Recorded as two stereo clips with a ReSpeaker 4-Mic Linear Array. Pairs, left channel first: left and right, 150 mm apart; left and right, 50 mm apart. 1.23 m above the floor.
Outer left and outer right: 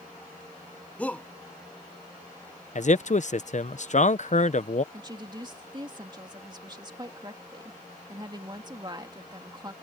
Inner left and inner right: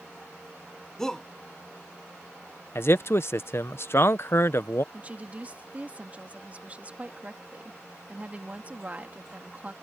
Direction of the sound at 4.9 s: 30° right (ahead or behind).